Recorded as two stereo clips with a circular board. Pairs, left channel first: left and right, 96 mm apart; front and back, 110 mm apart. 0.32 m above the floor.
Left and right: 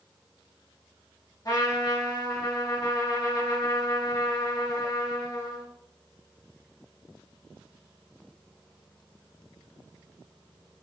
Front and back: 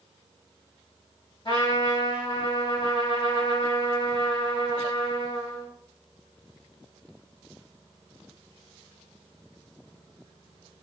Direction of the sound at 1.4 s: 40° left.